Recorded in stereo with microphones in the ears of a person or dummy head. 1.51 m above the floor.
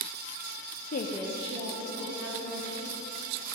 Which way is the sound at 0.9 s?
50° left (ahead or behind).